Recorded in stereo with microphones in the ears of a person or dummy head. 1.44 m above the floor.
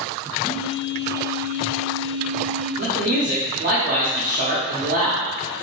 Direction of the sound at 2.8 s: 40° right (ahead or behind).